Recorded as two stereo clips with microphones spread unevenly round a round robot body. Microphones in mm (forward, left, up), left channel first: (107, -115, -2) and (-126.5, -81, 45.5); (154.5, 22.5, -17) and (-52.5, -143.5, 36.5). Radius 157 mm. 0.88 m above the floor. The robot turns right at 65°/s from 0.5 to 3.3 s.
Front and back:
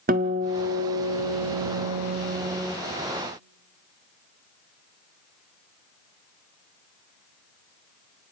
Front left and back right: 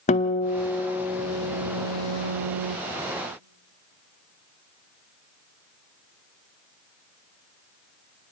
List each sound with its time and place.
0.1 s a guitar: 110° left, 0.6 m; by 2.8 s 100° right, 0.6 m